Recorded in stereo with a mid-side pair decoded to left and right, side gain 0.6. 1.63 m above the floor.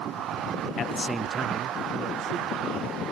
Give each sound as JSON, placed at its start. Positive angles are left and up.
{"t": 0.8, "sound": "a man speaking", "azimuth_deg": 40, "distance_m": 0.8}